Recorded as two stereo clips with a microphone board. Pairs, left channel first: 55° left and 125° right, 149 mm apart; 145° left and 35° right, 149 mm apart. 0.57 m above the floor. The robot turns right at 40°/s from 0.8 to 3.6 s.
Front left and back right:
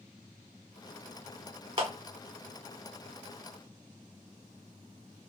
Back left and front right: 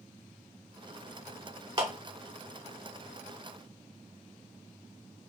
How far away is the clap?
About 1.2 m.